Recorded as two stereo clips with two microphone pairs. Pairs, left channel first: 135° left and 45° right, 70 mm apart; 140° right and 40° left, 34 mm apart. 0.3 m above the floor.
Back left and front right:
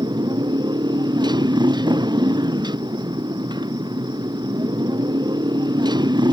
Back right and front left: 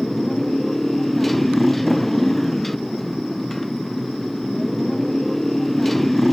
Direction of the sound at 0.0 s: 55° right.